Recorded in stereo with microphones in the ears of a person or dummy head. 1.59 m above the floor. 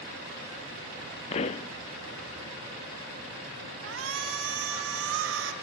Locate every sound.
1.3 s a pop: 35° left (ahead or behind), 0.5 m
3.8 s a shout: 85° right, 3.5 m